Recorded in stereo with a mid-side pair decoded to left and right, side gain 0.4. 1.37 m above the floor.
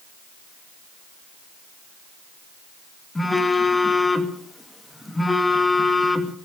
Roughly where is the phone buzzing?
Ahead.